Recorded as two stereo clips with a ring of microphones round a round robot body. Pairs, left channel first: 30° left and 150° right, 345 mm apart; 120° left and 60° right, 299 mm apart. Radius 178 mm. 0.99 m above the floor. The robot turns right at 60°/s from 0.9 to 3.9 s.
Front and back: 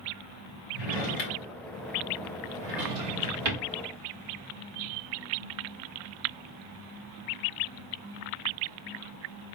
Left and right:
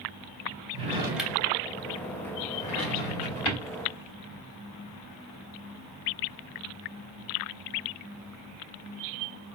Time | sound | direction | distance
0.7 | a drawer | 10° left | 2.5 m